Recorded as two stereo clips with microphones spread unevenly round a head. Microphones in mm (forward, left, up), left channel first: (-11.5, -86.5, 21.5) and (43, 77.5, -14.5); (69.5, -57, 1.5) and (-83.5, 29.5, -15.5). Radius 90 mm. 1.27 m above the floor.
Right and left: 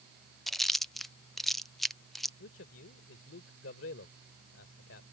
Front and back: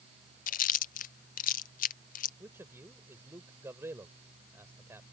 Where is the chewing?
5° right.